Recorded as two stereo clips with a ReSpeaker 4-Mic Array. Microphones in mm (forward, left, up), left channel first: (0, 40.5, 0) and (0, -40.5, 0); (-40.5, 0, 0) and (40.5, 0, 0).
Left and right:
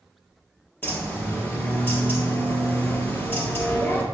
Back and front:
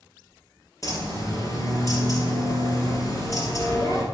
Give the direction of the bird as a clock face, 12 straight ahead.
7 o'clock.